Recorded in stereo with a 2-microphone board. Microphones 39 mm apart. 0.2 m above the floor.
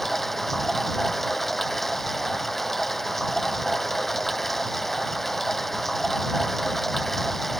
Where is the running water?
5° left (ahead or behind).